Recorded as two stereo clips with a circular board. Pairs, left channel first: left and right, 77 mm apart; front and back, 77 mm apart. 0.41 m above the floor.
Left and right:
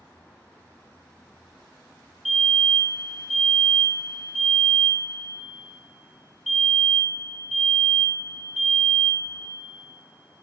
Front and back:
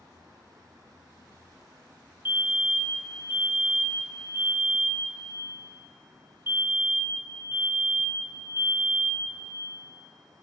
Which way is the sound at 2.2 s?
Straight behind.